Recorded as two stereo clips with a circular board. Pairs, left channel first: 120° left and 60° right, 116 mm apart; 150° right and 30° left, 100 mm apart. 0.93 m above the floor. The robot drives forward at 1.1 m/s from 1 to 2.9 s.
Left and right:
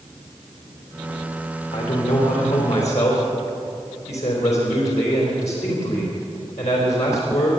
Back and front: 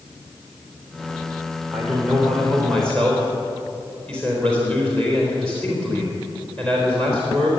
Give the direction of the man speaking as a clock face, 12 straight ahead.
8 o'clock.